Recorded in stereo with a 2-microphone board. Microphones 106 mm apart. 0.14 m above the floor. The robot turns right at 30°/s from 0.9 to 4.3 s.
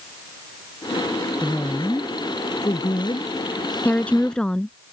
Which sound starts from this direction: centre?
A woman speaking, at 3.9 s.